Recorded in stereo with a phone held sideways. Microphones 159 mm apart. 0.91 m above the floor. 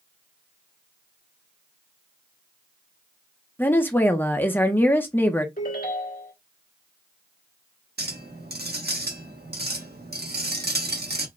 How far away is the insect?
No insect in this recording.